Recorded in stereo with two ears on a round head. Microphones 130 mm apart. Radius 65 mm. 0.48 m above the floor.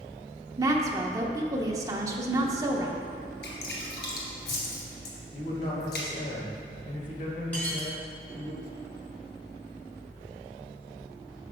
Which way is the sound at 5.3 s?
50° left (ahead or behind).